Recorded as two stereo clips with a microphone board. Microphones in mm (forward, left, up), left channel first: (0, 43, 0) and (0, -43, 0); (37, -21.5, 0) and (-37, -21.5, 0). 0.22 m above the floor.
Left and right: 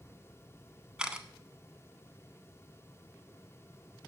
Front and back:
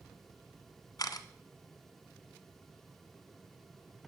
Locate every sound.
1.0 s a camera shutter: 15° right, 0.9 m